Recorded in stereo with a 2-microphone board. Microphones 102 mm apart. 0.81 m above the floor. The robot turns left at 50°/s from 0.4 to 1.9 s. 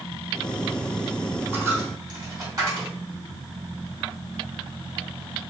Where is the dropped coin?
20° right (ahead or behind), 1.9 m; by 2.9 s 35° right (ahead or behind), 1.9 m.